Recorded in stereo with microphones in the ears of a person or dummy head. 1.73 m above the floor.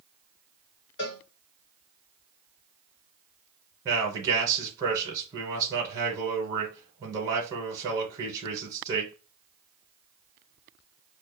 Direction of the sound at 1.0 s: 30° left (ahead or behind).